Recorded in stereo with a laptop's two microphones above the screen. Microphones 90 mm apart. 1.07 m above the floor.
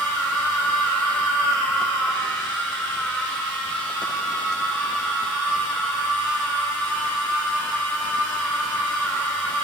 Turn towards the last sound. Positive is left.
turn(degrees=-5)  # may be behind; listen again after turning